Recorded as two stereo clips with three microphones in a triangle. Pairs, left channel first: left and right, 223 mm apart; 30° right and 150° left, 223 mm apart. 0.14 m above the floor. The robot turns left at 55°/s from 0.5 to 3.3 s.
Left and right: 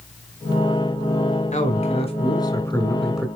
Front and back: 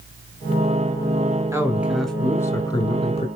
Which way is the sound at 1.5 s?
85° left.